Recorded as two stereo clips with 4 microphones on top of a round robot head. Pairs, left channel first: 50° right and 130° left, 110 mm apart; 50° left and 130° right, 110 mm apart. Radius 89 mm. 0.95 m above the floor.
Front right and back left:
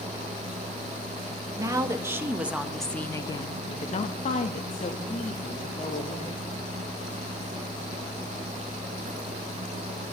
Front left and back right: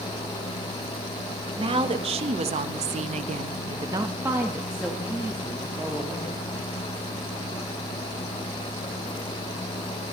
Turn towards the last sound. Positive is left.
turn(degrees=-30)